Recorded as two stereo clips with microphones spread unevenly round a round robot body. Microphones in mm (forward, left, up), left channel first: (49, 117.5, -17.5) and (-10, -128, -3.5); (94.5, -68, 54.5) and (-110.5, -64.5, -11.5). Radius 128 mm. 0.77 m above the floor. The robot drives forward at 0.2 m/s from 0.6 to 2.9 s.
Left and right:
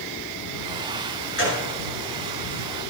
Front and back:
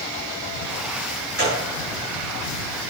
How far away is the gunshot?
About 5.5 m.